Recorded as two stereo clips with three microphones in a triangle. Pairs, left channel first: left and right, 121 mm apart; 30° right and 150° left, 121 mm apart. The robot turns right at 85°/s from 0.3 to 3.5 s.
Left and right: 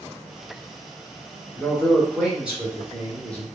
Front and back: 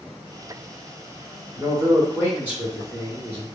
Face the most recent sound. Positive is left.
turn(degrees=-70)